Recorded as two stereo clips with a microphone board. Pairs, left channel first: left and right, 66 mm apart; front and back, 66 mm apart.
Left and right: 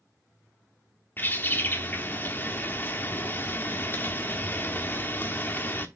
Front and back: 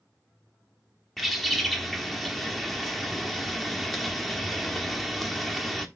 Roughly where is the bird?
Left.